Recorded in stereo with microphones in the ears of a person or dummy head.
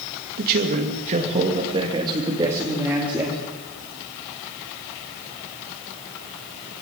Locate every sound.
0.4 s a man speaking: 50° right (ahead or behind), 2.5 m; by 3.4 s 5° right (ahead or behind), 3.5 m